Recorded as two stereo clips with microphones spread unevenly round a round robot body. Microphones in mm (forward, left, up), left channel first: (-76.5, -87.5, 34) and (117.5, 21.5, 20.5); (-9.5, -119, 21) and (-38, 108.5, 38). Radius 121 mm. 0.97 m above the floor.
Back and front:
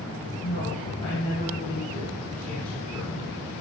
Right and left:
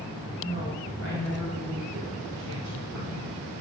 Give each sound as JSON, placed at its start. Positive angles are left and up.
{"t": 0.4, "sound": "a woman speaking", "azimuth_deg": 140, "distance_m": 3.0}